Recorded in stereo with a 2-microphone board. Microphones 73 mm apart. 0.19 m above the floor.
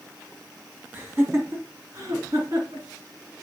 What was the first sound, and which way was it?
Laughter, 30° right (ahead or behind).